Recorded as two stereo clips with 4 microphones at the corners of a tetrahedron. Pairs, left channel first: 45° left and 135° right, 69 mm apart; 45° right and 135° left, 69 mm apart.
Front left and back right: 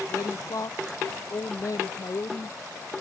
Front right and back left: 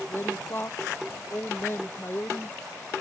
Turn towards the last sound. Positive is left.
turn(degrees=10)